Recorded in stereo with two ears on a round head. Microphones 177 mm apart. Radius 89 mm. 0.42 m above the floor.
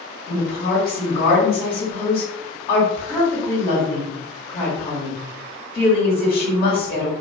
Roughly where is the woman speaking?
Left.